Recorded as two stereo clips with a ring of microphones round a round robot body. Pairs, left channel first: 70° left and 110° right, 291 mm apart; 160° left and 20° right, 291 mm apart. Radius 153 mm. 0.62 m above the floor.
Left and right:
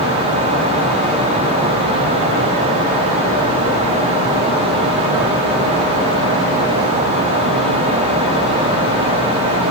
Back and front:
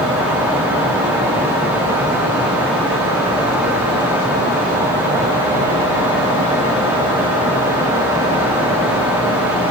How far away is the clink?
I don't hear a clink.